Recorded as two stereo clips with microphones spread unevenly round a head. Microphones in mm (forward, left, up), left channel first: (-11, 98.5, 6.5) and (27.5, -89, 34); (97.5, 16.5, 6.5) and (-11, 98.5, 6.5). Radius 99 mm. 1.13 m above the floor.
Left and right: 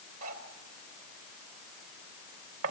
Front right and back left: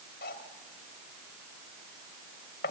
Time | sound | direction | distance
0.2 | cutlery clinking | 60° right | 3 m